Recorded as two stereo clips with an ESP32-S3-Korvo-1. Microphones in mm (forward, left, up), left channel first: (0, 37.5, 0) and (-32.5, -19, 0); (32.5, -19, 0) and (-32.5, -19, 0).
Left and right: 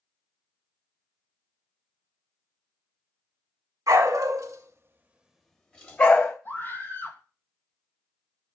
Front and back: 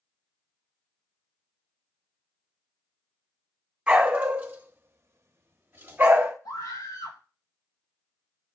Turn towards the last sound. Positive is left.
turn(degrees=5)